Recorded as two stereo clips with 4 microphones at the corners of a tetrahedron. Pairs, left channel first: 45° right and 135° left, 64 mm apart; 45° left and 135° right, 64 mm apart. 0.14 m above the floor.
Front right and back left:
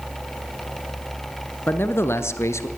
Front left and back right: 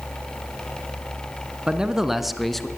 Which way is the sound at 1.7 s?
70° right.